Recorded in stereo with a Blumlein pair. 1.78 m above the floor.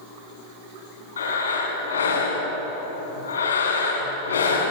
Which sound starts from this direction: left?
Breathing, at 1.2 s.